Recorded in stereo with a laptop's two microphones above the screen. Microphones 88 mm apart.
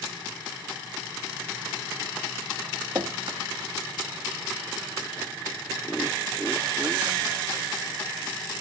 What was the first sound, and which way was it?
Dripping, 50° right (ahead or behind).